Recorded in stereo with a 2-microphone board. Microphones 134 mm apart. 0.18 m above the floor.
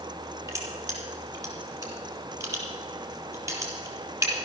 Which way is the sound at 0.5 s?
25° right (ahead or behind).